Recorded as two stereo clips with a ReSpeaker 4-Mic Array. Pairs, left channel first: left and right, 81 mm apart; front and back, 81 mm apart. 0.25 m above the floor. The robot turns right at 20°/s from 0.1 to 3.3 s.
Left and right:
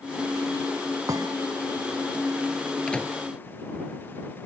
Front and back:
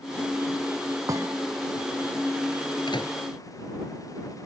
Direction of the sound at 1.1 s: 135° right.